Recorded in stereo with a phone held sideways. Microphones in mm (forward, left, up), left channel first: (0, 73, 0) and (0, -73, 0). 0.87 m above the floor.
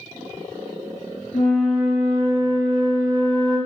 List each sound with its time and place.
1.3 s a flute: 70° left (ahead or behind), 2 m